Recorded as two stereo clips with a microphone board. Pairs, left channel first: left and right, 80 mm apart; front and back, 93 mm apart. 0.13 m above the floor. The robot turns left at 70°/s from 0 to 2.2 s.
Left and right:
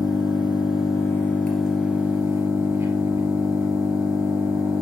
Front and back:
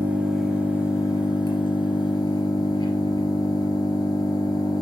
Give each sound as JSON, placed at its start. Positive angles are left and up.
{"t": 0.0, "sound": "an engine running", "azimuth_deg": 120, "distance_m": 2.0}